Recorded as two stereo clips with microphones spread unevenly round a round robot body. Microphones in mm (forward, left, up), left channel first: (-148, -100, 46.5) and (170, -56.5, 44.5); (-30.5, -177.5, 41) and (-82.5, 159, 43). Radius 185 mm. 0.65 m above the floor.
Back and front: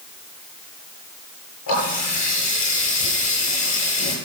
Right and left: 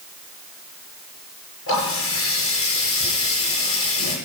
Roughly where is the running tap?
Behind right.